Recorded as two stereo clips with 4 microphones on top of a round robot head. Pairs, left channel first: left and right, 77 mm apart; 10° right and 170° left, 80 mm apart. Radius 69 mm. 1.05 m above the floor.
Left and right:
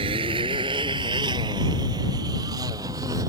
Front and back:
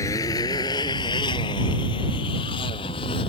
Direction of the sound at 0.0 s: 70° right.